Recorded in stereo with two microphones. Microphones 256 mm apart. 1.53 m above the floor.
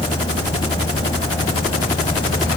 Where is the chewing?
No chewing in this recording.